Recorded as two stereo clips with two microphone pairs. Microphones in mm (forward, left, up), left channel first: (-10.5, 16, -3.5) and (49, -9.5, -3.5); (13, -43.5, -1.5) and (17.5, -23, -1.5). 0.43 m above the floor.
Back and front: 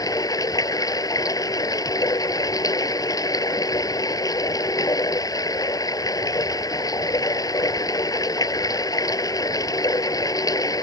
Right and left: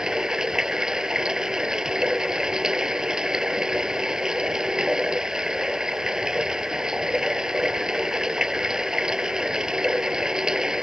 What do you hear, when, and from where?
0.0 s running water: 135° left